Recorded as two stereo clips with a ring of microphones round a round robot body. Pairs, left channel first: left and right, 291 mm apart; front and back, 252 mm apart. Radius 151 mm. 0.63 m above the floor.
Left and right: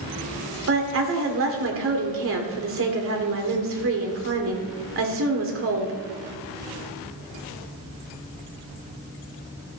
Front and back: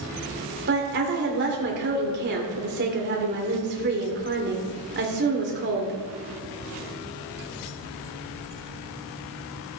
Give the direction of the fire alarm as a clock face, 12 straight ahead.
No fire alarm in this recording.